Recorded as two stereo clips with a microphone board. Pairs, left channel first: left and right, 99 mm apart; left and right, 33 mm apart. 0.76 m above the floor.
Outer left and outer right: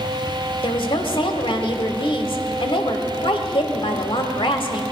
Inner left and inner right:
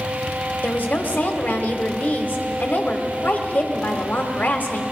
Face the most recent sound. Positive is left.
turn(degrees=60)  # may be behind; listen again after turning